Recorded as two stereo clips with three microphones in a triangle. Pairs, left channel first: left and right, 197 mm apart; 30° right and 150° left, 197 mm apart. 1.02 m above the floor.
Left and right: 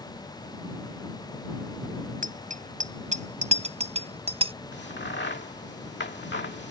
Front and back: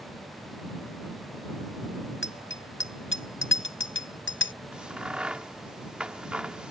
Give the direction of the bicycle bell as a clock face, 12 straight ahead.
1 o'clock.